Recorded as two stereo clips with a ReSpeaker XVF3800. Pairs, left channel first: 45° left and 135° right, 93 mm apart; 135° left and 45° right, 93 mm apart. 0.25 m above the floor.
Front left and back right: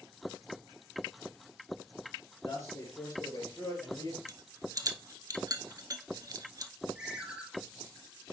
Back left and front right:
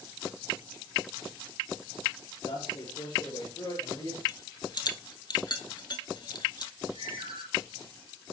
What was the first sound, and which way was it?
A man speaking, 105° left.